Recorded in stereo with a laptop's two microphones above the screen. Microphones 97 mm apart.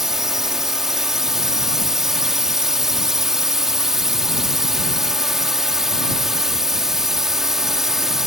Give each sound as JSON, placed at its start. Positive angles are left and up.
{"t": 0.0, "sound": "a drone", "side_deg": -5}